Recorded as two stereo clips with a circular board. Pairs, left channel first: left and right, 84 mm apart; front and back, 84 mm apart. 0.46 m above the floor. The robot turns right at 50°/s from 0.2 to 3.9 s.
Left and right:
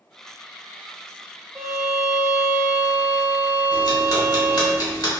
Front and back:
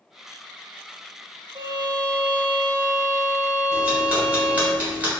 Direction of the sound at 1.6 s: 165° right.